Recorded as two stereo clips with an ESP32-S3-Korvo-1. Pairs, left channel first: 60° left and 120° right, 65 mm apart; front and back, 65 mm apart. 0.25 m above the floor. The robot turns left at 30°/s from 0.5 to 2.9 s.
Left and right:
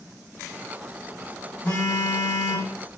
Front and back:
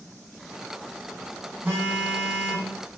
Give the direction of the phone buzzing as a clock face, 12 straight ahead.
8 o'clock.